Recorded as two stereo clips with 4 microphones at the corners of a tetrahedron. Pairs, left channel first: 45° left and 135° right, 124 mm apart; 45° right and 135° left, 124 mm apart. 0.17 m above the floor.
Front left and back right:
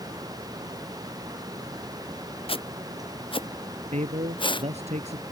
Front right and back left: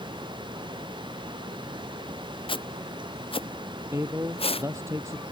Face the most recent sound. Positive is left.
turn(degrees=-155)